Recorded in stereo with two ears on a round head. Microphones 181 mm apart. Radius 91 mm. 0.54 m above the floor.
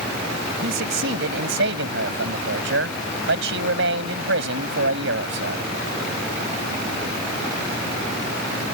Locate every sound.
0.6 s a man speaking: 70° right (ahead or behind)